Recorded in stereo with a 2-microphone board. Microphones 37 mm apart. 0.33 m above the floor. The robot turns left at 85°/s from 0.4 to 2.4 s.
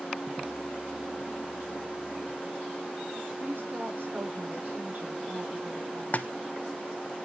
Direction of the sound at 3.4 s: 60° right (ahead or behind).